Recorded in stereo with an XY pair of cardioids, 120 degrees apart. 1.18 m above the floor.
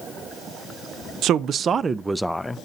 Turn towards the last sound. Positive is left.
turn(degrees=15)